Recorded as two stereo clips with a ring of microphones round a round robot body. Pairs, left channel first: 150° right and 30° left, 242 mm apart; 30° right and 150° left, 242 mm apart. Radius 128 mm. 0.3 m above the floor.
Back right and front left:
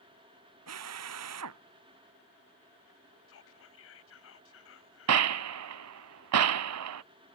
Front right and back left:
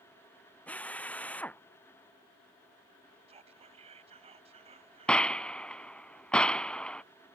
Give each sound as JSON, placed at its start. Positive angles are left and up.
{"t": 0.7, "sound": "a drill", "azimuth_deg": 55}
{"t": 3.3, "sound": "whispering", "azimuth_deg": -150}
{"t": 5.1, "sound": "a gunshot", "azimuth_deg": 55}